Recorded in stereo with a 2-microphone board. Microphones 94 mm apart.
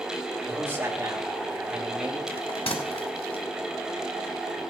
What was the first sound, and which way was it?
A man speaking, 25° right (ahead or behind).